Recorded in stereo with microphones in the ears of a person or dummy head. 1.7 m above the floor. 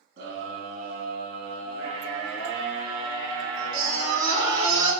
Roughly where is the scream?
Right.